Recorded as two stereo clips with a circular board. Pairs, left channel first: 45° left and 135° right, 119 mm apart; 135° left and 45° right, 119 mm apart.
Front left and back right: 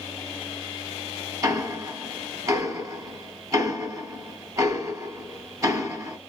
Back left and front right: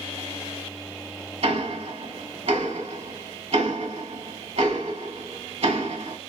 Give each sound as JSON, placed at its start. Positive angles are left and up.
{"t": 1.4, "sound": "ticking", "azimuth_deg": -75, "distance_m": 1.0}